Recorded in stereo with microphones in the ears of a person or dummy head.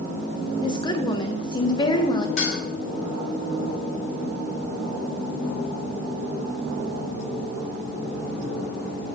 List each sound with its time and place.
0.6 s a woman speaking: 25° left (ahead or behind), 1.7 m
2.4 s dishes clattering: 45° left (ahead or behind), 7 m